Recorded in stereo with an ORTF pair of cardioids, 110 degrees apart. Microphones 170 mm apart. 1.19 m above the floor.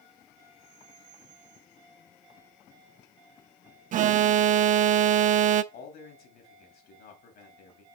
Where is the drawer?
No drawer in this recording.